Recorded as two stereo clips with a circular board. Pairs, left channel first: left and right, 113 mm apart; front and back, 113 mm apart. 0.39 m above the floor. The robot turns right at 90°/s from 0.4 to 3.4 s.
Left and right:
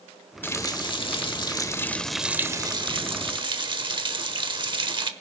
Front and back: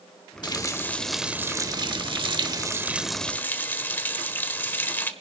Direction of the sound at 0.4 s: 25° left.